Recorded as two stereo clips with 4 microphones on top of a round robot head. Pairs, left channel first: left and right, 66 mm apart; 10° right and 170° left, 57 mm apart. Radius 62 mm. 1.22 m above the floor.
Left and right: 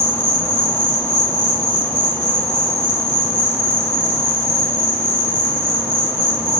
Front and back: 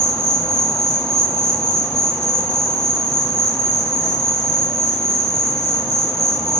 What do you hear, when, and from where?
0.0 s an insect: 55° left, 1.1 m